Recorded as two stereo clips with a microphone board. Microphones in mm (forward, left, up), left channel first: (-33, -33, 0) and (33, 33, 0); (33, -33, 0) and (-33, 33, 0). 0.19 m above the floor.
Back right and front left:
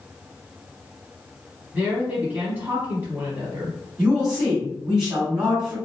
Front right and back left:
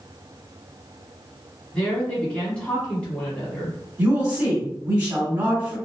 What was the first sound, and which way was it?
A woman speaking, 10° left.